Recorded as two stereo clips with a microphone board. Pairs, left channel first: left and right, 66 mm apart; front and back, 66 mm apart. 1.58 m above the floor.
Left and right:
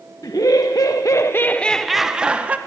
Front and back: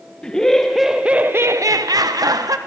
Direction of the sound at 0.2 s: 75° left.